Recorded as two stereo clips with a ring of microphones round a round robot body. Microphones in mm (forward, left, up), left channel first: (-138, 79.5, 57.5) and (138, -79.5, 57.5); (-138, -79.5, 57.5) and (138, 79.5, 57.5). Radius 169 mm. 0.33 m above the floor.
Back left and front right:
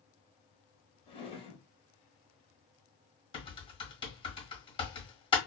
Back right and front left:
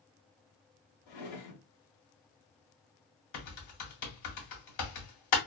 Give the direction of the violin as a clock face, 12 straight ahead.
No violin in this recording.